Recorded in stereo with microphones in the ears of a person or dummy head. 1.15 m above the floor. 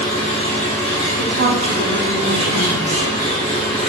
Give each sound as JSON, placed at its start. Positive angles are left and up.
{"t": 0.0, "sound": "an engine running", "side_deg": 40, "distance_m": 0.9}
{"t": 1.2, "sound": "a woman speaking", "side_deg": -65, "distance_m": 1.1}